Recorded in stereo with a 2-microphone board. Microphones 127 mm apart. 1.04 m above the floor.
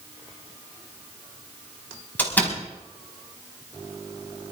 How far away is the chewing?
I don't hear chewing.